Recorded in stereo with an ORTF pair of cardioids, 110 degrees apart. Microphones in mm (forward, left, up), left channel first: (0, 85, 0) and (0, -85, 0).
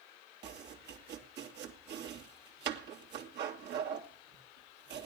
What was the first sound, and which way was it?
Chopping, 70° right.